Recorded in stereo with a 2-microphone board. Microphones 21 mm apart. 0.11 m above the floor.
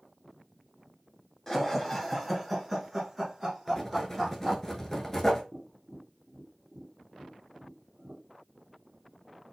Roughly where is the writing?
Centre.